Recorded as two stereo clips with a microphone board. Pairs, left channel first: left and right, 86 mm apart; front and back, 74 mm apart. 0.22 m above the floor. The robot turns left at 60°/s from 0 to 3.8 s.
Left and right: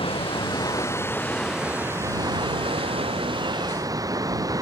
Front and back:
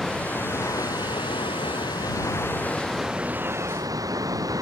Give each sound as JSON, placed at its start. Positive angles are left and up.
{"t": 0.0, "sound": "running water", "azimuth_deg": 90}